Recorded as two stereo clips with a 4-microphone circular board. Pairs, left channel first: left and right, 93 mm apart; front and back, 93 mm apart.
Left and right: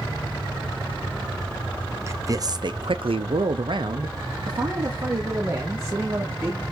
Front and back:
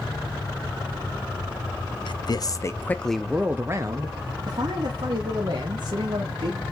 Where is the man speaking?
30° right, 1.0 m; by 6.6 s 155° right, 3 m.